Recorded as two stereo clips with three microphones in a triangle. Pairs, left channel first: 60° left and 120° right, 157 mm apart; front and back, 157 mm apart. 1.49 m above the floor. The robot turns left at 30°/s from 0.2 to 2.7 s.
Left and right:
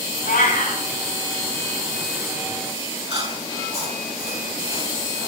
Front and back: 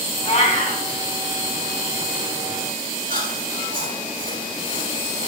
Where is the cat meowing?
50° left, 5 m; by 0.8 s 30° left, 5 m.